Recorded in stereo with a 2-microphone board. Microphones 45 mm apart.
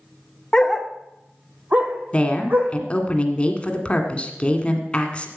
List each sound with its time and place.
0.5 s a dog barking: 15° left (ahead or behind), 0.6 m; by 2.8 s 45° right (ahead or behind), 2.5 m
2.1 s a woman speaking: 25° left (ahead or behind), 1.8 m